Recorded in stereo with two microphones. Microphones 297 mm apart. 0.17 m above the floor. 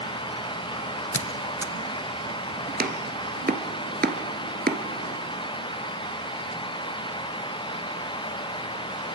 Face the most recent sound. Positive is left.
turn(degrees=-30)  # may be behind; listen again after turning